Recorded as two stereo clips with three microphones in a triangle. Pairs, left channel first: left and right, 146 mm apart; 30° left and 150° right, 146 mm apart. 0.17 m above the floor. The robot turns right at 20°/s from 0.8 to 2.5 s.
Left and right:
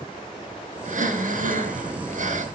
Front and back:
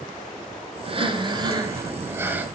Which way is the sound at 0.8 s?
105° right.